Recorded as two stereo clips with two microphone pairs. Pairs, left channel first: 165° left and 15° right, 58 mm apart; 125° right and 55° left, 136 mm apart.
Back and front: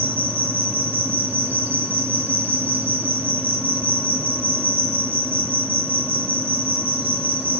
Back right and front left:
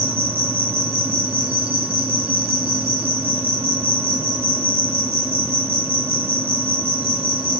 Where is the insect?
25° left, 1.0 m.